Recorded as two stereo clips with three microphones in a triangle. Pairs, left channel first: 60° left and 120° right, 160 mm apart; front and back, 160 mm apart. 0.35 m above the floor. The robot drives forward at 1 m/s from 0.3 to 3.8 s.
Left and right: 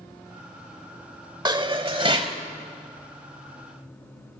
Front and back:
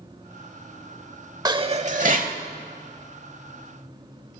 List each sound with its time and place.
1.4 s dishes clattering: 145° right, 0.7 m; by 2.4 s 170° right, 1.4 m